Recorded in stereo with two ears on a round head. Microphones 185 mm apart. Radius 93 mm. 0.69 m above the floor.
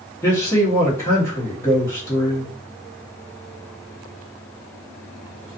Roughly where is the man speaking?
Centre.